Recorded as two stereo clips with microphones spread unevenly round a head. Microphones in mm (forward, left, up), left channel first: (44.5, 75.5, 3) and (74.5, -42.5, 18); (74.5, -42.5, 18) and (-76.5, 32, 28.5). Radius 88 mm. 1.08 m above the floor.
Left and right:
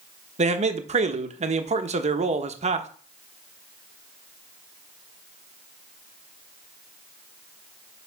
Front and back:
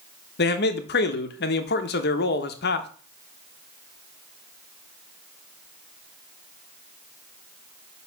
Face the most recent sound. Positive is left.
turn(degrees=-45)